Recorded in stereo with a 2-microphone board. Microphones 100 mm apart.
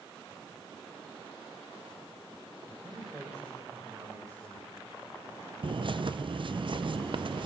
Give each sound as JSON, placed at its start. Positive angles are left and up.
{"t": 2.7, "sound": "a man speaking", "side_deg": -25, "distance_m": 8.0}
{"t": 5.6, "sound": "a bird", "side_deg": -55, "distance_m": 0.5}